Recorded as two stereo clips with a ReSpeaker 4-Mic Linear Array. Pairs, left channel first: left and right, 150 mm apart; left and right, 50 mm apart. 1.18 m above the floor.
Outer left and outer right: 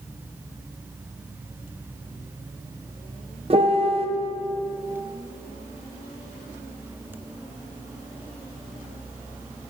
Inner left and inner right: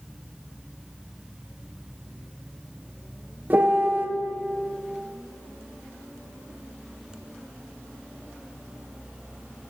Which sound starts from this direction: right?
A piano, at 3.5 s.